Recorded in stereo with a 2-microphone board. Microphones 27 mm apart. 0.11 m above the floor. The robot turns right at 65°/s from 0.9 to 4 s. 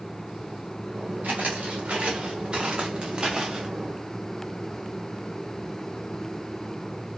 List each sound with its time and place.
1.2 s footsteps: 90° right, 1.4 m; by 3.7 s 20° right (ahead or behind), 0.8 m